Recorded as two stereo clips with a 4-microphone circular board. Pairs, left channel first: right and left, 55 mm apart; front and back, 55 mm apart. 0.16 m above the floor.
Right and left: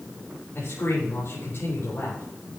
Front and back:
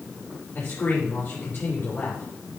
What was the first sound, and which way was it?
A man speaking, 45° right.